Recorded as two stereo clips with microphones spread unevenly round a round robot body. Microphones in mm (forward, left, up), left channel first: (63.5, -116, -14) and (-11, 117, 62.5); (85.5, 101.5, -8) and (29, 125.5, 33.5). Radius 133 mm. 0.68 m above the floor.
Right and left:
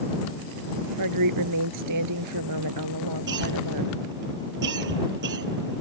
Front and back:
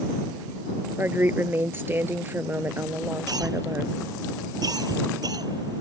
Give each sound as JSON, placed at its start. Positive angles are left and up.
{"t": 1.0, "sound": "a woman speaking", "azimuth_deg": 105}
{"t": 3.3, "sound": "a cough", "azimuth_deg": 155}